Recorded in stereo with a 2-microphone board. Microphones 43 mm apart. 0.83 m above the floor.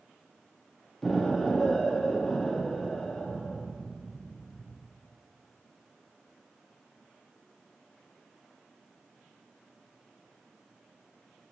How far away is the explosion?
About 1.0 m.